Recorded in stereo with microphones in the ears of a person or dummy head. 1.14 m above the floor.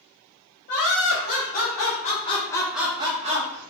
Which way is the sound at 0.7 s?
50° left (ahead or behind).